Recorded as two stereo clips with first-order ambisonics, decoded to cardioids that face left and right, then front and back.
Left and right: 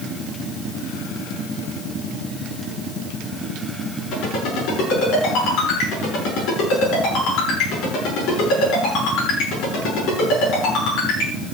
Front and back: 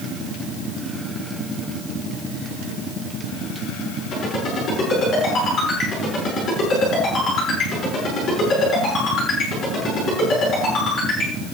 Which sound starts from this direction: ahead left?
A ringtone, at 4.1 s.